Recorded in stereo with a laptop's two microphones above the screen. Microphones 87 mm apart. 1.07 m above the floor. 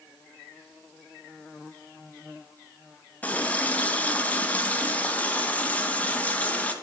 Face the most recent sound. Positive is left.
turn(degrees=15)  # may be behind; listen again after turning